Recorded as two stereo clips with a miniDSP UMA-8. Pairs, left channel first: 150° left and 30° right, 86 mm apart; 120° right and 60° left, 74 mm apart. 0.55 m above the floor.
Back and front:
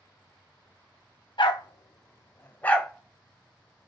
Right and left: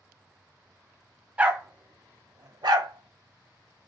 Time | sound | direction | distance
1.4 | a dog barking | 130° left | 1.3 m